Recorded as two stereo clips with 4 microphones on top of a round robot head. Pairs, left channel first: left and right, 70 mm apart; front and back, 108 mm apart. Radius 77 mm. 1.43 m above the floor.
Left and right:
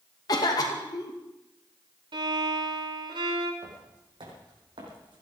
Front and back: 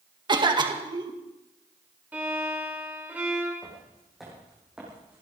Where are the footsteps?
85° right, 5 m; by 5.2 s 100° right, 4.5 m.